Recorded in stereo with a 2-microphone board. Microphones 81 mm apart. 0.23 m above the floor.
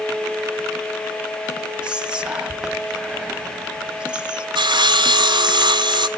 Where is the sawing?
70° right (ahead or behind), 0.6 m.